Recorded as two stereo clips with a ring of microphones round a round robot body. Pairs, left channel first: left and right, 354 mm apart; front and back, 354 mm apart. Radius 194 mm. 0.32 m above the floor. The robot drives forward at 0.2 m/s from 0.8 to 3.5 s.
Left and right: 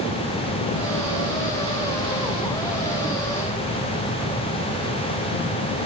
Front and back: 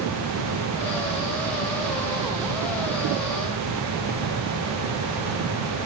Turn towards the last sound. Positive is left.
No sound to turn to.